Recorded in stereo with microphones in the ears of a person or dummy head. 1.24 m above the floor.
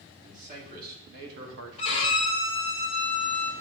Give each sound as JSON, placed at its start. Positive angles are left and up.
{"t": 0.2, "sound": "a man speaking", "side_deg": -45, "distance_m": 2.5}
{"t": 1.8, "sound": "a violin", "side_deg": 35, "distance_m": 1.1}